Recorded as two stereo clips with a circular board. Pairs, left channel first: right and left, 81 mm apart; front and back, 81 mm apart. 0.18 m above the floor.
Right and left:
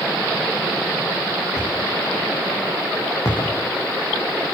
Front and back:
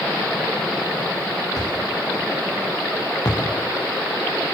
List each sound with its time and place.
1.6 s a thud: 45° right, 9 m